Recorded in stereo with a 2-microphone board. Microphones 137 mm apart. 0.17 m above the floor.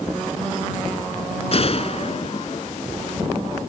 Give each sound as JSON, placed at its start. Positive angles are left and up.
{"t": 1.5, "sound": "a gunshot", "side_deg": 50}